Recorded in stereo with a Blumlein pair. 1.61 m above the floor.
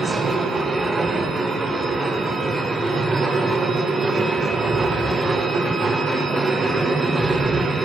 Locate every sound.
0.0 s a machine running: 10° right, 1.3 m